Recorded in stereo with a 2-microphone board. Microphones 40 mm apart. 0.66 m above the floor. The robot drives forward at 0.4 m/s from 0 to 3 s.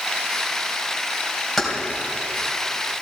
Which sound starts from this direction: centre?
Keys jangling, at 1.6 s.